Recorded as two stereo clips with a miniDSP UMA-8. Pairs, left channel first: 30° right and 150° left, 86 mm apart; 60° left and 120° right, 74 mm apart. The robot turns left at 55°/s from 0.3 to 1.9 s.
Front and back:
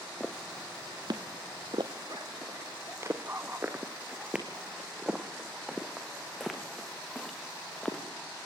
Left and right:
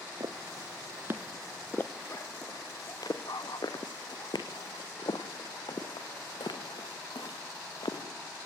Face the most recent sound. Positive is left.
turn(degrees=55)